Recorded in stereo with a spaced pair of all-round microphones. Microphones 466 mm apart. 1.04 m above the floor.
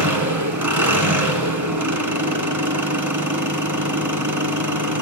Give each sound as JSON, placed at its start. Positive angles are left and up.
{"t": 0.0, "sound": "an engine running", "side_deg": -40, "distance_m": 2.5}